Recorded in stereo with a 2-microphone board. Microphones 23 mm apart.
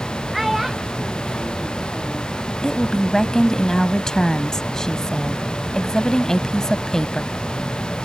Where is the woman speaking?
30° left (ahead or behind).